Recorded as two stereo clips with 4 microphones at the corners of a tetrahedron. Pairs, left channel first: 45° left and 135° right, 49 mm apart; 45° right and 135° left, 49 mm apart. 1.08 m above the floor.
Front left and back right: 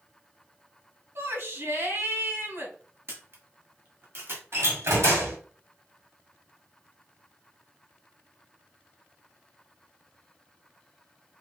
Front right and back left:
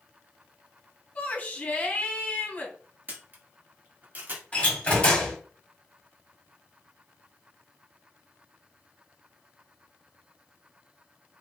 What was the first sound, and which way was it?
A shout, 110° right.